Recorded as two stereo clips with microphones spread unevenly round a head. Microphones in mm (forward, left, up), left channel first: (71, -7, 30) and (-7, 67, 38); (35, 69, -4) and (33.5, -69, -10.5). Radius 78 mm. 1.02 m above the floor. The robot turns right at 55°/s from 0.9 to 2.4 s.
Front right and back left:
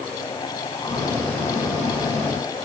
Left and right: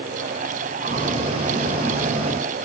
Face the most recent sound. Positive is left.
No sound to turn to.